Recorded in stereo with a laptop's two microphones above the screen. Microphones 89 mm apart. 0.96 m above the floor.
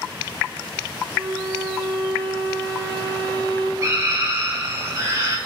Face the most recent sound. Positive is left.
turn(degrees=-40)  # may be behind; listen again after turning